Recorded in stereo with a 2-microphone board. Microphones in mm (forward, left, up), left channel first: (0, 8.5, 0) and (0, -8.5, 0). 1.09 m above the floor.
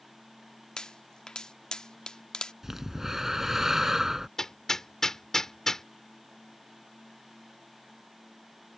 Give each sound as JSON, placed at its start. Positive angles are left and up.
{"t": 0.8, "sound": "a pop", "side_deg": 40}
{"t": 2.6, "sound": "breathing", "side_deg": -20}
{"t": 4.4, "sound": "hammering", "side_deg": 25}